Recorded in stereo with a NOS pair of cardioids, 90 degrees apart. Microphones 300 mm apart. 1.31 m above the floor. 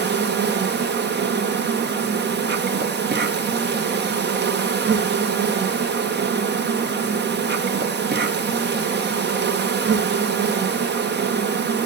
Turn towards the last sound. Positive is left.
turn(degrees=-35)